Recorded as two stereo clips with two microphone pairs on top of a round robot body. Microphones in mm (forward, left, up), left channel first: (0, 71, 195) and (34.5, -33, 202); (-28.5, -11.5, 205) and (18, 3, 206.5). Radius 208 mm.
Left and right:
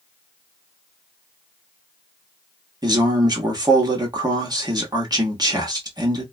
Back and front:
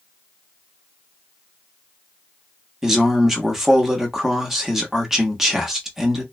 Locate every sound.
2.8 s a man speaking: 60° right, 1.3 m